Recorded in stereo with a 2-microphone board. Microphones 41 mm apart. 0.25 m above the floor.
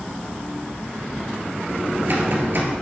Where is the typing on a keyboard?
55° right (ahead or behind), 2.0 m.